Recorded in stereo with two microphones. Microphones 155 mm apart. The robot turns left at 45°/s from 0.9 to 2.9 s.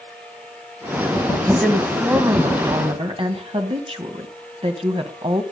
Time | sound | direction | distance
1.4 | a woman speaking | 15° left | 2 m